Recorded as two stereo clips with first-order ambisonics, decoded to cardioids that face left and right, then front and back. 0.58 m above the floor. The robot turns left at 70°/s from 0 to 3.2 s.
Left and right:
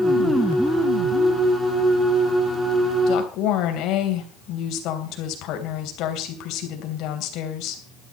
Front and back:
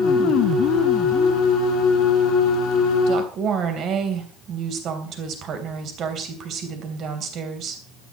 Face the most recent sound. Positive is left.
turn(degrees=125)